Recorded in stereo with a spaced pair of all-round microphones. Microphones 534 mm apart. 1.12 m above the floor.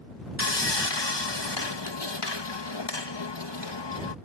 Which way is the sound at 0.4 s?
50° left (ahead or behind).